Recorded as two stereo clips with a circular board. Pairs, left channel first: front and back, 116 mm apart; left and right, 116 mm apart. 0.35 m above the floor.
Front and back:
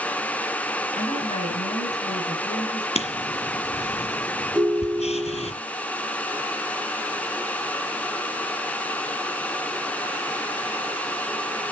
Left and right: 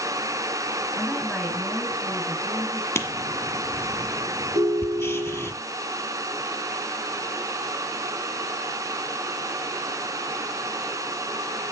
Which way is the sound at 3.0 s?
20° left.